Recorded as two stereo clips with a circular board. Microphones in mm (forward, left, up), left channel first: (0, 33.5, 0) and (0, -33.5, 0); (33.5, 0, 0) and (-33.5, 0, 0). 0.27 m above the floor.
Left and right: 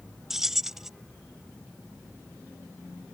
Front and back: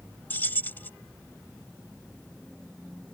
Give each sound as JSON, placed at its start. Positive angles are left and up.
{"t": 0.3, "sound": "keys jangling", "azimuth_deg": -10}